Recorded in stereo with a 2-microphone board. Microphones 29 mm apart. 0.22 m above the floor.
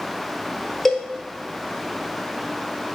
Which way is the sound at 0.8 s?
5° left (ahead or behind).